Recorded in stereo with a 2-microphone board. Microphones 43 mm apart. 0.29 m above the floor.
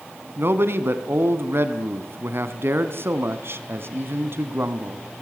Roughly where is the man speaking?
Right.